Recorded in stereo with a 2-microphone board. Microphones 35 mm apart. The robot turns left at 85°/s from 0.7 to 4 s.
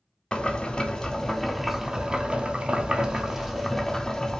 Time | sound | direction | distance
0.3 | boiling | 25° left (ahead or behind) | 0.6 m